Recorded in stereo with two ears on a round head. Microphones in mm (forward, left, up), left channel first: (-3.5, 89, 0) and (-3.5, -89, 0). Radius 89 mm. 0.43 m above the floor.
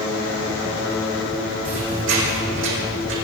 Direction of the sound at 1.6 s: 70° right (ahead or behind).